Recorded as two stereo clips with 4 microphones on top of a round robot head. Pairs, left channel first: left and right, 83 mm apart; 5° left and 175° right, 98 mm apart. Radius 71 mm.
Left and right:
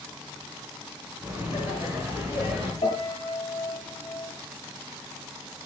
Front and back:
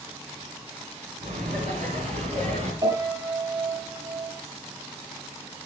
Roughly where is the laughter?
Behind.